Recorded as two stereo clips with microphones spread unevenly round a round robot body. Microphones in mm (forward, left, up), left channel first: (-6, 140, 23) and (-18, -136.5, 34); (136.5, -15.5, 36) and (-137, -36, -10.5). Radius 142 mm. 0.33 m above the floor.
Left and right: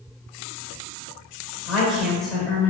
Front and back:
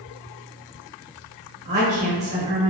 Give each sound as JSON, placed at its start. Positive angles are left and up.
{"t": 1.6, "sound": "a woman speaking", "azimuth_deg": 175, "distance_m": 1.1}